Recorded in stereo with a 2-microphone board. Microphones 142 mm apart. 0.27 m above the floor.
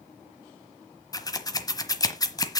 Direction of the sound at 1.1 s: 25° left (ahead or behind).